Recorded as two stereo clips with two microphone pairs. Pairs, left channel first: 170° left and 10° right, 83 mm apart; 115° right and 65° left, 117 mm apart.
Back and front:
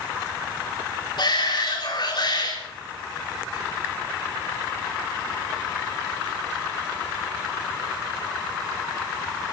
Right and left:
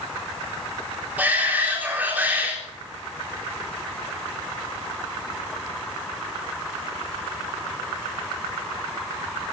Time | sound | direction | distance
1.2 | a shout | 140° left | 4 m